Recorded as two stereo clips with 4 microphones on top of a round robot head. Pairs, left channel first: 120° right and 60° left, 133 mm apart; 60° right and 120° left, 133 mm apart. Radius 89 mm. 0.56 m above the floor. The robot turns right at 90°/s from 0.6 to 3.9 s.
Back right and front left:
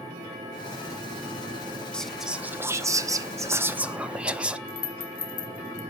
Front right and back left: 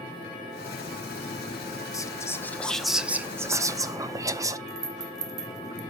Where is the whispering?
50° right, 0.6 m; by 4.6 s 130° left, 0.6 m.